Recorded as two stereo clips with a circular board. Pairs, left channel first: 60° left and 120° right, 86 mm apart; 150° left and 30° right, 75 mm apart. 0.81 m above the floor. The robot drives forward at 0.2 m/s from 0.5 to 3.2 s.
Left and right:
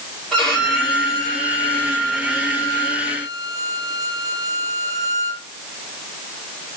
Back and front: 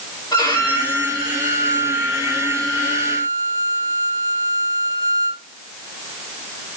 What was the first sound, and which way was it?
A violin, 145° left.